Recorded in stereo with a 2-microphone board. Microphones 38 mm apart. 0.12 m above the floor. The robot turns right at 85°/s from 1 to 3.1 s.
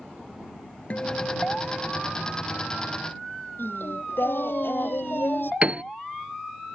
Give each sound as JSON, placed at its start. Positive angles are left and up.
{"t": 0.9, "sound": "a guitar", "azimuth_deg": 55}
{"t": 3.6, "sound": "singing", "side_deg": 70}
{"t": 5.6, "sound": "a piano", "side_deg": -35}